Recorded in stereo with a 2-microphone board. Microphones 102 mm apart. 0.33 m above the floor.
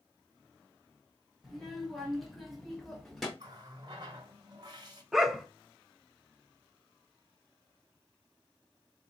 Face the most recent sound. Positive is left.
turn(degrees=-5)  # may be behind; listen again after turning